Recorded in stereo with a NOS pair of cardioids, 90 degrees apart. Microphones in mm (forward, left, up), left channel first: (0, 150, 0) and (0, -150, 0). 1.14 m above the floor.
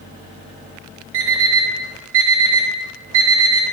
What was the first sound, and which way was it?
An alarm clock, 65° right.